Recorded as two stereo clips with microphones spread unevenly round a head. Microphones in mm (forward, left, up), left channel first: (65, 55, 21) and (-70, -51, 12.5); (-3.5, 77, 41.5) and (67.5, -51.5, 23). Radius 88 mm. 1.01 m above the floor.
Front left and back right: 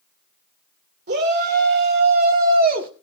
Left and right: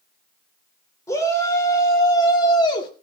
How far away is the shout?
About 3.5 m.